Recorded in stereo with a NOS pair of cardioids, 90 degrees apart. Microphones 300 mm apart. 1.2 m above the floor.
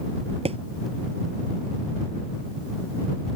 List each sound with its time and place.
0.5 s a thud: 20° right